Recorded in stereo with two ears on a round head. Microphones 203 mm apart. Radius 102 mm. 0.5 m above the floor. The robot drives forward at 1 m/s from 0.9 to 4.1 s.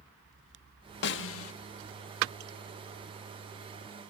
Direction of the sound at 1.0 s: 50° left (ahead or behind).